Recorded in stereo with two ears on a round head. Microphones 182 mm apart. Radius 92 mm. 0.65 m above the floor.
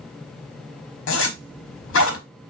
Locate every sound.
1.1 s a zipper: 65° left (ahead or behind), 1.4 m